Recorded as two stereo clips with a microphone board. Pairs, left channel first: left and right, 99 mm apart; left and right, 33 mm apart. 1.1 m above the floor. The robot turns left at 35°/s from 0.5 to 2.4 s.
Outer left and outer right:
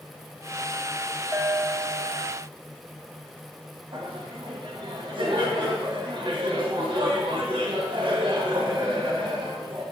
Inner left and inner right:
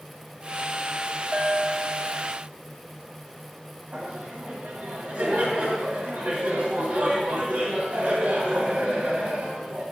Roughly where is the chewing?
No chewing in this recording.